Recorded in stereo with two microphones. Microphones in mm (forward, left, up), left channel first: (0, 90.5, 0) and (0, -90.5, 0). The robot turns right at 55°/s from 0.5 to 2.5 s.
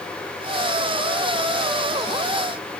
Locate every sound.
Only background noise.